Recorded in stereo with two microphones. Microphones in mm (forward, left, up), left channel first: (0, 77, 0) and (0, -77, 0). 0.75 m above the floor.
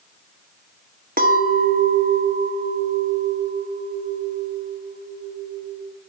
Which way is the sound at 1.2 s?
65° right (ahead or behind).